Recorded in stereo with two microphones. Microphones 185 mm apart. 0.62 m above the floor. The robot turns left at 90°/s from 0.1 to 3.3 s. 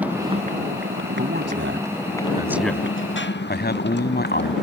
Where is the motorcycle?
10° right (ahead or behind); by 4.6 s 65° left (ahead or behind).